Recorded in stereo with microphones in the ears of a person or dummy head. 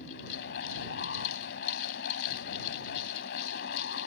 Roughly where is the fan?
Left.